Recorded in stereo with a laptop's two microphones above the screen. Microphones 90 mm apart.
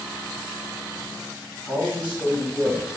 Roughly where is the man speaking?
Left.